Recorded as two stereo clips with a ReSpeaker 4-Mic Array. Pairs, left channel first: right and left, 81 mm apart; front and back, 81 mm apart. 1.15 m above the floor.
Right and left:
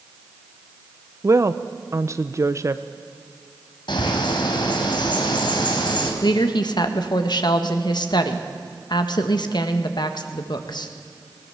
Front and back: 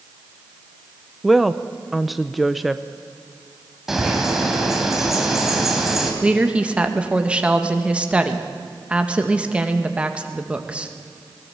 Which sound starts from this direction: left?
A woman speaking, at 1.2 s.